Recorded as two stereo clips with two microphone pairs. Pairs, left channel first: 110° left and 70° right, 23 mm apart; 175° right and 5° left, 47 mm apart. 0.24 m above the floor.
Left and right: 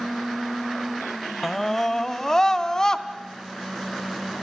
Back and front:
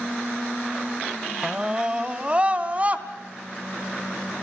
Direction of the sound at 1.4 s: 55° left.